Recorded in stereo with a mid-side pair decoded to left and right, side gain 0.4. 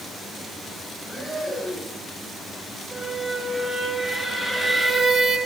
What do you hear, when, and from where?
1.0 s breathing: 10° right, 7.5 m
2.9 s a squeak: 15° left, 4 m